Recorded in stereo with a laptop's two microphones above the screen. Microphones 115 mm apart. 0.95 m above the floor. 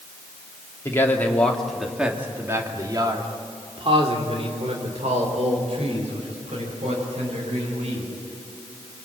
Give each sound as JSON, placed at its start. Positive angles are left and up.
{"t": 0.8, "sound": "a man speaking", "side_deg": 25, "distance_m": 2.5}